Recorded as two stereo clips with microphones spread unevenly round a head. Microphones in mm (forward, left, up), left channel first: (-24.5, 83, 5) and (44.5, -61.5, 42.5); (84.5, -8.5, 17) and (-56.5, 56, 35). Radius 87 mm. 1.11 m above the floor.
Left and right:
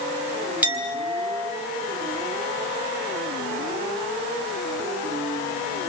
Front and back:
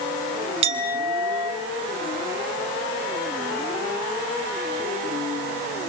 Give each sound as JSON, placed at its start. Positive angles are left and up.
{"t": 0.6, "sound": "a clink", "azimuth_deg": -145, "distance_m": 3.5}